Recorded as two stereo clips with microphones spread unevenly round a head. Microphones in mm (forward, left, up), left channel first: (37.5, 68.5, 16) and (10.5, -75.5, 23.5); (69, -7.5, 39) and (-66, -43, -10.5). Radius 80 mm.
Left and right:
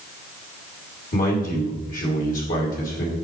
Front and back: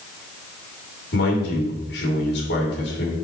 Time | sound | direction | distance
1.1 | a man speaking | 45° left | 2.5 m